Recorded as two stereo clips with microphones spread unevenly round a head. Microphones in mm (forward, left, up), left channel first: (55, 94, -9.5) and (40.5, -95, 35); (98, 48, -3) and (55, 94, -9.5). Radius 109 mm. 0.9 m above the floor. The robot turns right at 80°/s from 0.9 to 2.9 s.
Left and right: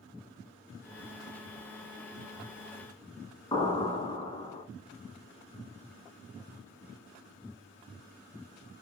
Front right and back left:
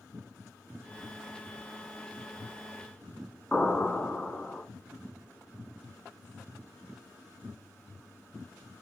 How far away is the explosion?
About 1.5 m.